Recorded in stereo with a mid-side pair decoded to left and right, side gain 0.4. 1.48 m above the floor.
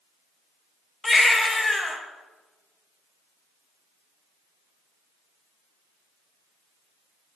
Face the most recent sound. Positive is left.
turn(degrees=25)